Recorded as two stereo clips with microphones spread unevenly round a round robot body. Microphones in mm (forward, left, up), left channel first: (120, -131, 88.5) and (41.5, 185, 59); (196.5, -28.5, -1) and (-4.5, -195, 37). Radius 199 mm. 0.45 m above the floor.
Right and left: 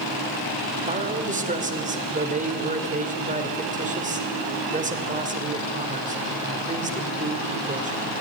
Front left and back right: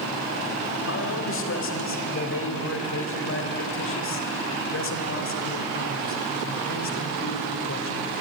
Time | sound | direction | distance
0.8 | a man speaking | 45° left | 2.5 m